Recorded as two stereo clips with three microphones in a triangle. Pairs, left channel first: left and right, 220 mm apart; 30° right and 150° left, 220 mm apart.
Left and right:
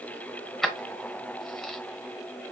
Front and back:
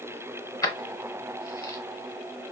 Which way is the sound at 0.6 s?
5° left.